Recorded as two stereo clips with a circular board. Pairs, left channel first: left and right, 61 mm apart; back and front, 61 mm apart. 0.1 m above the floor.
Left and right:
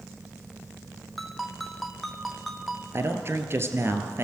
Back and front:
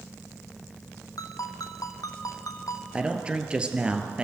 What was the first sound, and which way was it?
A ringtone, straight behind.